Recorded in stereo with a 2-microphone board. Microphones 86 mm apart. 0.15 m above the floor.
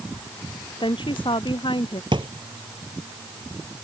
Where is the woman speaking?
70° left (ahead or behind).